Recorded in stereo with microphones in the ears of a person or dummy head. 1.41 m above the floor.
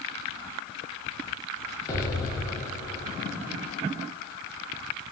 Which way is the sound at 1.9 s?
15° left (ahead or behind).